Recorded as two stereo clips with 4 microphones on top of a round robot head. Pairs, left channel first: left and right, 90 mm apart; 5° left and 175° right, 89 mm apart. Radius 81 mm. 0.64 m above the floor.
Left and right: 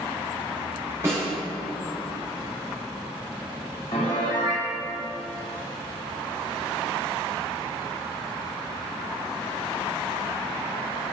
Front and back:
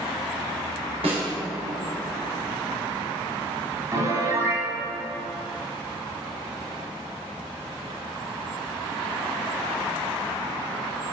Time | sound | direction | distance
1.0 | a snare drum | 160° right | 1.7 m
3.9 | a piano | 135° left | 0.7 m